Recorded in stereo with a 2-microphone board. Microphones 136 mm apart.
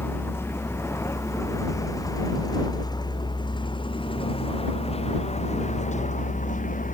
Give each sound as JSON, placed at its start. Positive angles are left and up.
{"t": 0.0, "sound": "a vehicle", "side_deg": 15}